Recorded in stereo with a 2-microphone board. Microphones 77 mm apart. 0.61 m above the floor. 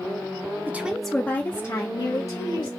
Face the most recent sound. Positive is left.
turn(degrees=50)  # may be behind; listen again after turning